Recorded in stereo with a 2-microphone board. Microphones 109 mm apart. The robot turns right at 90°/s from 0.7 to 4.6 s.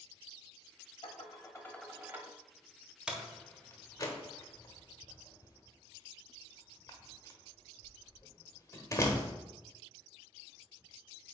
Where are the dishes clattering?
100° left, 1.0 m; by 2.3 s 145° right, 1.0 m.